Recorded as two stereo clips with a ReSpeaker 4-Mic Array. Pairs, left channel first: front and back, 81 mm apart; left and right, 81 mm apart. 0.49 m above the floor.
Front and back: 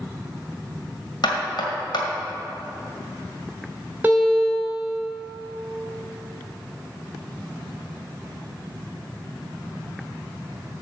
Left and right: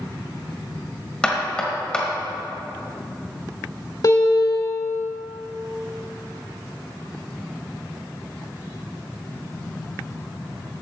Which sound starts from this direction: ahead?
Knocking, at 1.2 s.